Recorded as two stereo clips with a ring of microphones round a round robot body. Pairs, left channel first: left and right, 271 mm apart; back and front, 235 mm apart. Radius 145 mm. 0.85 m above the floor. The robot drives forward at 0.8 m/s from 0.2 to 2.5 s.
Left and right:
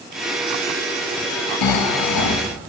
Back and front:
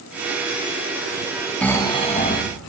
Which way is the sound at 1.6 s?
95° left.